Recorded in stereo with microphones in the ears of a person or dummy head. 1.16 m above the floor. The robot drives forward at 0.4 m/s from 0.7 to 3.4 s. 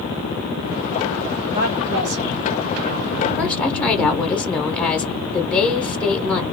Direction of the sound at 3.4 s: 5° left (ahead or behind).